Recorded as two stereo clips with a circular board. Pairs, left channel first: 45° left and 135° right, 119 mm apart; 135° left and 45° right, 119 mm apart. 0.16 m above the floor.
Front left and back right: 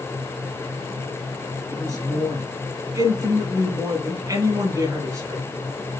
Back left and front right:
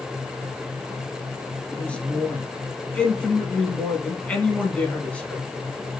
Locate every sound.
1.7 s a man speaking: 155° right, 1.4 m